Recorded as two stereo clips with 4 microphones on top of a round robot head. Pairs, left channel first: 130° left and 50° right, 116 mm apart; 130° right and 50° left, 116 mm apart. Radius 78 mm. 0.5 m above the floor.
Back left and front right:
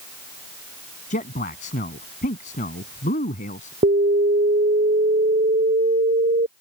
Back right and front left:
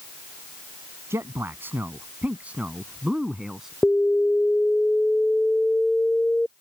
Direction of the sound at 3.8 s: 45° right.